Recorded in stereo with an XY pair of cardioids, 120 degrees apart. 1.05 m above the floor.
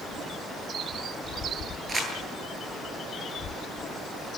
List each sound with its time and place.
1.9 s crumpling: 25° right, 9.5 m